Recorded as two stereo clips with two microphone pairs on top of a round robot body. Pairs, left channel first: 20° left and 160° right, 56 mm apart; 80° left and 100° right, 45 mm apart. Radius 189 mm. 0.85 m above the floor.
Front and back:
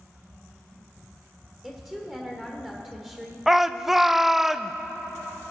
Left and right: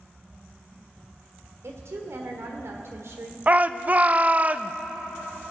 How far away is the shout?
About 0.7 m.